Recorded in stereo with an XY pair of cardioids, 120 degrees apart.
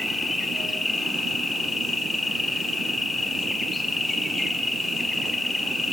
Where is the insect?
20° left, 0.8 m.